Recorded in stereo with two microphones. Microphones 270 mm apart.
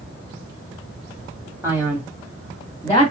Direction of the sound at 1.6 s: 10° right (ahead or behind).